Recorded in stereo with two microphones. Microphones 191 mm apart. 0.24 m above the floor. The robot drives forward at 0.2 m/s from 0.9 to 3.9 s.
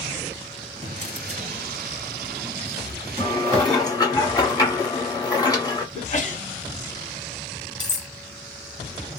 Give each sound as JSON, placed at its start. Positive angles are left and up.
{"t": 0.8, "sound": "a drawer", "side_deg": -35, "distance_m": 1.2}
{"t": 3.2, "sound": "dishes clattering", "side_deg": 25, "distance_m": 1.2}
{"t": 6.0, "sound": "a sneeze", "side_deg": 40, "distance_m": 1.2}
{"t": 7.8, "sound": "cutlery clinking", "side_deg": 40, "distance_m": 0.7}